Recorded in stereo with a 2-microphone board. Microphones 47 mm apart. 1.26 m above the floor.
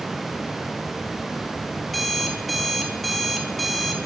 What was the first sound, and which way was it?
An alarm clock, centre (ahead or behind).